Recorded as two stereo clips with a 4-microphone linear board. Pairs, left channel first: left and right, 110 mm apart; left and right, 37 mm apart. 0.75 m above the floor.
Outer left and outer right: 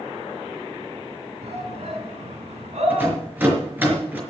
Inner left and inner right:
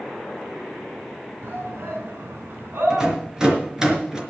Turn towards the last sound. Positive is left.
turn(degrees=-15)  # may be behind; listen again after turning